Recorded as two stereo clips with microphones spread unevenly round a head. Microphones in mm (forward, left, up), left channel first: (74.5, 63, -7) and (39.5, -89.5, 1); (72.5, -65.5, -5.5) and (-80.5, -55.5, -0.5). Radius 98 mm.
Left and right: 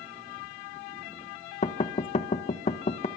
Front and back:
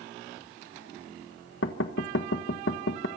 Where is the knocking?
30° left, 1.4 m.